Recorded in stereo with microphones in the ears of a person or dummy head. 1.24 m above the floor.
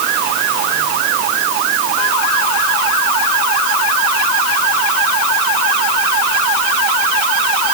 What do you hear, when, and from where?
Only background noise.